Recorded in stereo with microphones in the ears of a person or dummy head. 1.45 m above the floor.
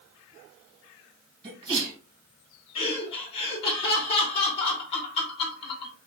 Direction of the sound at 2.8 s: 30° left (ahead or behind).